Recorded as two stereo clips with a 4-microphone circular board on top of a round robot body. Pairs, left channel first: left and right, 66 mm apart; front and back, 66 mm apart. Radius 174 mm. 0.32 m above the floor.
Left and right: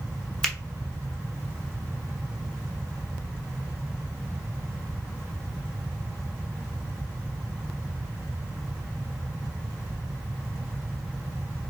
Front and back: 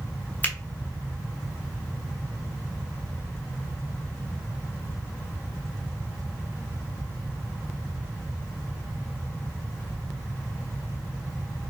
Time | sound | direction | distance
0.4 | a finger snap | 20° left | 1.2 m